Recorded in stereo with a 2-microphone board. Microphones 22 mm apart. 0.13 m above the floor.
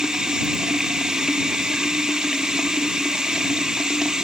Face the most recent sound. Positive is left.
turn(degrees=-40)  # may be behind; listen again after turning